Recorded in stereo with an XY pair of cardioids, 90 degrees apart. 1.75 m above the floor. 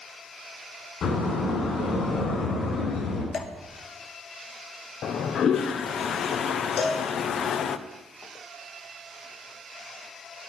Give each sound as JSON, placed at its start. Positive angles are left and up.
{"t": 1.0, "sound": "a door slam", "azimuth_deg": 65, "distance_m": 7.5}
{"t": 3.3, "sound": "dripping", "azimuth_deg": 60, "distance_m": 1.7}
{"t": 5.0, "sound": "a toilet flushing", "azimuth_deg": 65, "distance_m": 0.9}
{"t": 6.8, "sound": "a cowbell", "azimuth_deg": 55, "distance_m": 6.0}